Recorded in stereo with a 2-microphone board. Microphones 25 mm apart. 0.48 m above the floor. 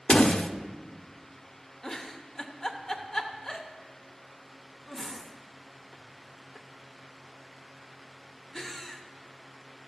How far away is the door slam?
About 0.5 m.